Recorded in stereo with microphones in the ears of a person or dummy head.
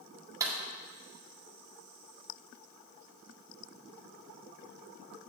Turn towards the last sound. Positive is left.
turn(degrees=-15)  # may be behind; listen again after turning